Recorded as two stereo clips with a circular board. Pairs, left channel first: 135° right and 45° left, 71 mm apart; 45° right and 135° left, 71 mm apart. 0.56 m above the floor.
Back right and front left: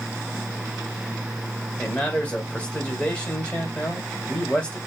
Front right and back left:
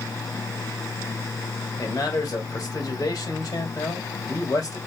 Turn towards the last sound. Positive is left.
turn(degrees=-60)